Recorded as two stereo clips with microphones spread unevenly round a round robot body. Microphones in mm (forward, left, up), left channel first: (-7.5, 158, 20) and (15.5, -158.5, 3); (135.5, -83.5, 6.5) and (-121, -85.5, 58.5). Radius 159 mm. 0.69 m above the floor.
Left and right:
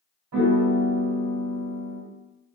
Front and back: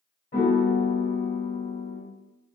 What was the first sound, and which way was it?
A piano, 50° right.